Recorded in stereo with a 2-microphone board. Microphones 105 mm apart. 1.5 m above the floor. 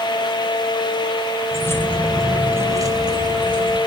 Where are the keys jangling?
25° left (ahead or behind), 0.9 m; by 3.8 s 45° right (ahead or behind), 1.3 m.